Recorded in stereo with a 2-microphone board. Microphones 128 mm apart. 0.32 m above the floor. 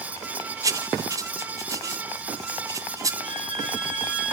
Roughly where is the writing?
Right.